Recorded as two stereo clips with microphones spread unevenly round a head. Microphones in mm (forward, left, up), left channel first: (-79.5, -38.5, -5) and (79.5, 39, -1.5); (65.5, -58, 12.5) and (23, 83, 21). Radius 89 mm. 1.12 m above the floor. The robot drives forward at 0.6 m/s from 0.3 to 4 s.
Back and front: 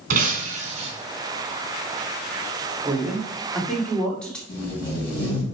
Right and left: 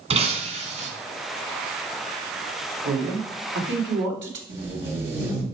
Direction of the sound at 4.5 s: 140° left.